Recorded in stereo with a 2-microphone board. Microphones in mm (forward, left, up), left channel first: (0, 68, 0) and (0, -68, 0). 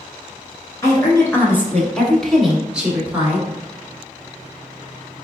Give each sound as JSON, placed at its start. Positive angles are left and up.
{"t": 0.8, "sound": "a woman speaking", "side_deg": 20, "distance_m": 1.4}